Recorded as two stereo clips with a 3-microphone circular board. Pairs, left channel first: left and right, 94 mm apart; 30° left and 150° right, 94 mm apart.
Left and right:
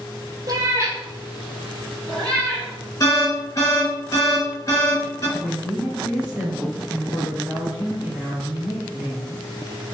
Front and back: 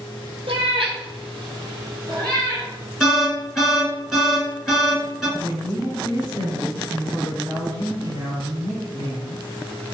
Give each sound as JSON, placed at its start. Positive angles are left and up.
{"t": 0.5, "sound": "a cat meowing", "azimuth_deg": -140, "distance_m": 1.1}
{"t": 3.0, "sound": "an alarm", "azimuth_deg": 125, "distance_m": 1.6}
{"t": 5.4, "sound": "a woman speaking", "azimuth_deg": -170, "distance_m": 1.9}